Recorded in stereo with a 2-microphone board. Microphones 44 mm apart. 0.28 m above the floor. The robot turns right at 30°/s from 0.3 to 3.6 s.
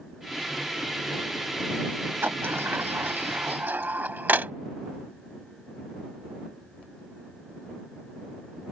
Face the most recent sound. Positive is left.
turn(degrees=-45)  # may be behind; listen again after turning